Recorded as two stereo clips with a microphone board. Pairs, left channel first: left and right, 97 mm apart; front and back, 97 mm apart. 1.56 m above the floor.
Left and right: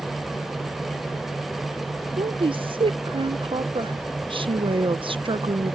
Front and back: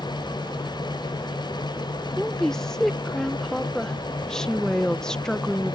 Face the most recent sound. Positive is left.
turn(degrees=-80)